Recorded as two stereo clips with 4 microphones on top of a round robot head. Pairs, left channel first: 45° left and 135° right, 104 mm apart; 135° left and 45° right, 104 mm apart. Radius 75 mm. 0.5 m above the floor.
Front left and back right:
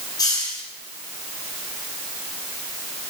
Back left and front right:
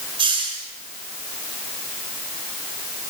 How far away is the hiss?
About 6.5 m.